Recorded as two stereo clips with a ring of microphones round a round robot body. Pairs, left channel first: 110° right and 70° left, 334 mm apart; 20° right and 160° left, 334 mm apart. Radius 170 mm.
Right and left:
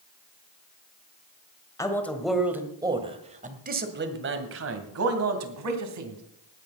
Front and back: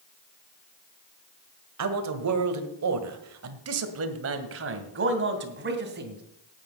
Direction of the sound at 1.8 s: 170° left.